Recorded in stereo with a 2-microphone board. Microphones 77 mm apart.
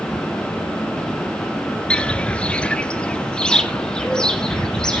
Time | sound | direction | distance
1.9 | footsteps | 10° left (ahead or behind) | 0.9 m